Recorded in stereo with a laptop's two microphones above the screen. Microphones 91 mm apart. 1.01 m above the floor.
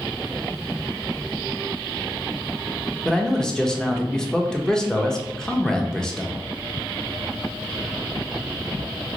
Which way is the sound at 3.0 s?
5° left (ahead or behind).